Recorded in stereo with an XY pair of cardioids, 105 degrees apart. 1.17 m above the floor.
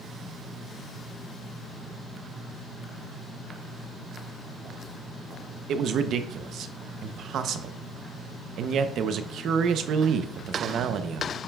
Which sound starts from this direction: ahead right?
A man speaking, at 5.7 s.